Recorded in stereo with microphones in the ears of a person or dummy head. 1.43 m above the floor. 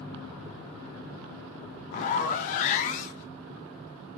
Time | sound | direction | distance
1.9 | a zipper | 40° left (ahead or behind) | 0.6 m